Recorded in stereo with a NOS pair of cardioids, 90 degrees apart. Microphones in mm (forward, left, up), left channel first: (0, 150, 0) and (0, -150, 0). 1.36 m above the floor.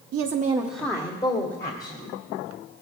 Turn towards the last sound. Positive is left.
turn(degrees=35)